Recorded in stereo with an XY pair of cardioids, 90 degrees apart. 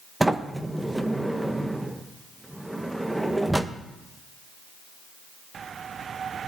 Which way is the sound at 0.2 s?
10° right.